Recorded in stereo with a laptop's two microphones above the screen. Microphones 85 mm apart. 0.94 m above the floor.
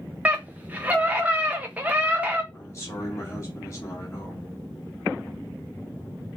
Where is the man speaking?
35° left (ahead or behind), 1.4 m.